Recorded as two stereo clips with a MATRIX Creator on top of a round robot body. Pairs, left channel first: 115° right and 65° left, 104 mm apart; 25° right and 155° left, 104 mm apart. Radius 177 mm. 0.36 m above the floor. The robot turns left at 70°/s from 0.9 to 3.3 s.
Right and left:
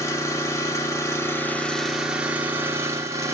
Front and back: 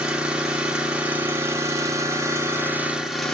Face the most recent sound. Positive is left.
turn(degrees=60)